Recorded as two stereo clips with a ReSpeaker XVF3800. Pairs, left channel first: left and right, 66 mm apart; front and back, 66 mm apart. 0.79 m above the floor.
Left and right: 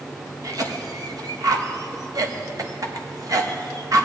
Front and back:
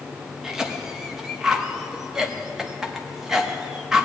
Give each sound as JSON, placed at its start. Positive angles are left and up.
{"t": 0.4, "sound": "a cough", "azimuth_deg": -100, "distance_m": 0.9}